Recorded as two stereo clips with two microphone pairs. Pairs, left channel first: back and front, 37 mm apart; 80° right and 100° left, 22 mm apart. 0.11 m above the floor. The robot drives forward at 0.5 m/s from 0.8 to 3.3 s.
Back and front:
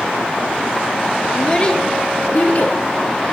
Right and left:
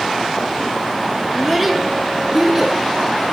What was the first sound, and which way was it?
A child speaking, 160° left.